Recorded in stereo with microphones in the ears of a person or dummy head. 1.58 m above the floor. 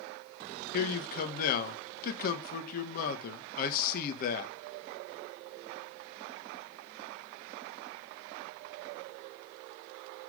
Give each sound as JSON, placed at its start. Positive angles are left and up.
{"t": 0.7, "sound": "a man speaking", "side_deg": 50, "distance_m": 1.5}